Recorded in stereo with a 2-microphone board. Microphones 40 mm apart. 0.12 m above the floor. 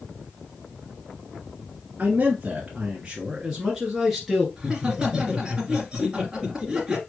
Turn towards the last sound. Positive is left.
turn(degrees=-25)  # may be behind; listen again after turning